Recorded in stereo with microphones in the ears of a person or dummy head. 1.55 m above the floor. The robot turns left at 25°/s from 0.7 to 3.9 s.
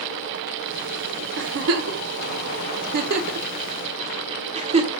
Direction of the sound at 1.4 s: 65° right (ahead or behind).